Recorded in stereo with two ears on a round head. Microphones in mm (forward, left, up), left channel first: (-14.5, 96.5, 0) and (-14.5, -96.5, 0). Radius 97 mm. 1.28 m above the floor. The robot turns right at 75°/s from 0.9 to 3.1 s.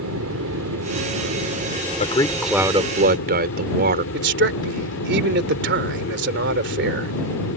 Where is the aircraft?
100° right; by 7.6 s 65° left.